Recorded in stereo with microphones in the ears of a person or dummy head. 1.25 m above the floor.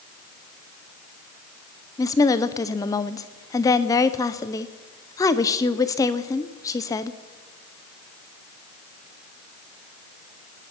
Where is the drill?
No drill in this recording.